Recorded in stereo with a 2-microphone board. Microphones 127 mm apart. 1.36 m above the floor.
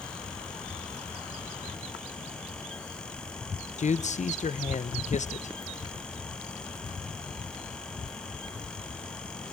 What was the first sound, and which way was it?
A man speaking, 70° left (ahead or behind).